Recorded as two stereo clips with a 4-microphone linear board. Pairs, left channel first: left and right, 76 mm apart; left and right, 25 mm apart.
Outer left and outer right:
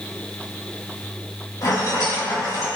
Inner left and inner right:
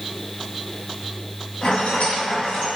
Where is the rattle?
55° left (ahead or behind), 1.9 m.